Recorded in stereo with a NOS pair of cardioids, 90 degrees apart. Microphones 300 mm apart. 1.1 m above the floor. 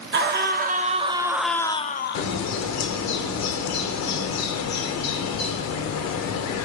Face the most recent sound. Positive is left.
turn(degrees=65)